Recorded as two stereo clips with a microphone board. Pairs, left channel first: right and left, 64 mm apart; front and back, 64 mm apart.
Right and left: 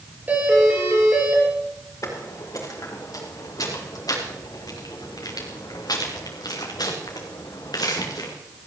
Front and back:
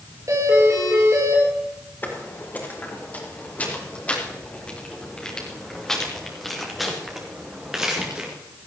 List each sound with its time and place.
0.3 s a doorbell: 150° left, 8 m
2.0 s footsteps: 55° right, 4.5 m; by 8.3 s 105° right, 3.5 m